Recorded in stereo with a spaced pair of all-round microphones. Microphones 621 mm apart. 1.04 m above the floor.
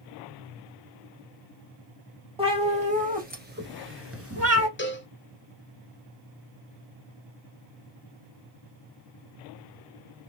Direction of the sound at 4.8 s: 20° left (ahead or behind).